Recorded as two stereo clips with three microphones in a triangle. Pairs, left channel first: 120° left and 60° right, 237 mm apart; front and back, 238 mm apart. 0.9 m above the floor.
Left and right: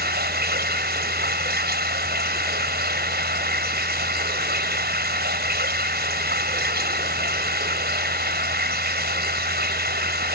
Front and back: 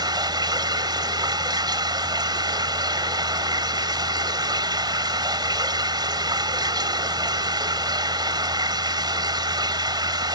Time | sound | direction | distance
0.0 | running water | 110° right | ?